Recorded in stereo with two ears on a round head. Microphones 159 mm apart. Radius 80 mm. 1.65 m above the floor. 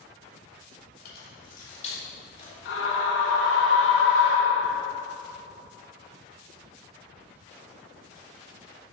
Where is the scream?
75° left (ahead or behind), 1.9 m.